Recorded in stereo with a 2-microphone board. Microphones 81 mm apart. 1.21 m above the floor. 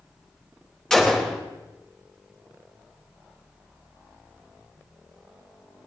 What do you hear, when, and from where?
0.9 s a gunshot: 10° left (ahead or behind), 2.5 m